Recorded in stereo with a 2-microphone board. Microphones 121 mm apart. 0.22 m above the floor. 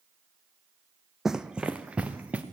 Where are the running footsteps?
5° right (ahead or behind), 0.6 m; by 2.4 s 10° right (ahead or behind), 1.8 m.